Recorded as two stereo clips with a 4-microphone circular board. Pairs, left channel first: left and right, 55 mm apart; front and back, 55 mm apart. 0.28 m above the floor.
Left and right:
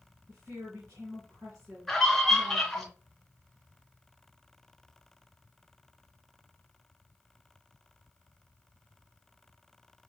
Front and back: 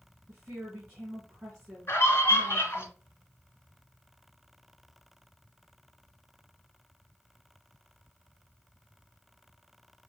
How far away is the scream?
About 1.5 m.